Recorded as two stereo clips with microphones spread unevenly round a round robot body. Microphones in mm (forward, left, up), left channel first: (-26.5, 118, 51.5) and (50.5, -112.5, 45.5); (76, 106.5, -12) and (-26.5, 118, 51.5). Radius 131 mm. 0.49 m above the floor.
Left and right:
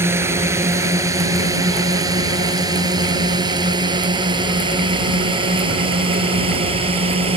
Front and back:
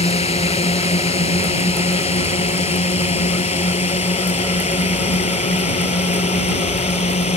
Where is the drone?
10° left; by 7.4 s 5° right.